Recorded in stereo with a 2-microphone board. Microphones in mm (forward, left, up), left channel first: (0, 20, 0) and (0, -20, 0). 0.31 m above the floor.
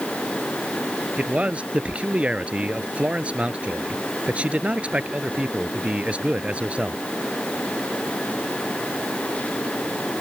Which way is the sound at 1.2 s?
35° right (ahead or behind).